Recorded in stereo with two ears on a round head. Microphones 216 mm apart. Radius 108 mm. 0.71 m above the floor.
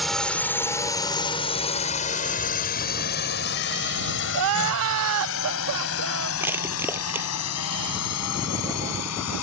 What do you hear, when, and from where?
0.0 s a drone: centre (ahead or behind); by 9.4 s 70° left (ahead or behind)
4.3 s crying: 60° right (ahead or behind)
6.4 s crushing: 10° right (ahead or behind)